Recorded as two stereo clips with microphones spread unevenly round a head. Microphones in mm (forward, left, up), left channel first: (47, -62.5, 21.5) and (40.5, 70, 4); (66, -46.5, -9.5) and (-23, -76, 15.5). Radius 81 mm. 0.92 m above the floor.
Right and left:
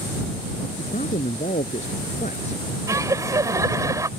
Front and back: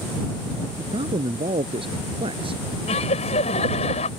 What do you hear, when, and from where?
0.8 s a man speaking: 140° right
2.9 s laughter: 25° left